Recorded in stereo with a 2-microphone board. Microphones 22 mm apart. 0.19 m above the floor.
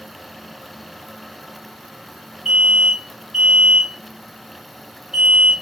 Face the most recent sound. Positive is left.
turn(degrees=-20)  # may be behind; listen again after turning